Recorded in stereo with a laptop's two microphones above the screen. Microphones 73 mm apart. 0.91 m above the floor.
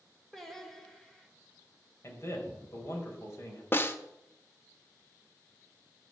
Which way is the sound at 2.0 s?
45° left (ahead or behind).